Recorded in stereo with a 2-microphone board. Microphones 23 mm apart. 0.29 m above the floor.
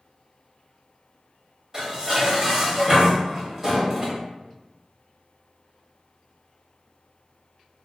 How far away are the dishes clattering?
About 0.9 m.